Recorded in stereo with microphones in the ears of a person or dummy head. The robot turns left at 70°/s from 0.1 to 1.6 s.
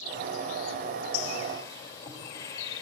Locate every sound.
1.1 s a bird: 55° left, 2.5 m; by 2.8 s 20° left, 2.5 m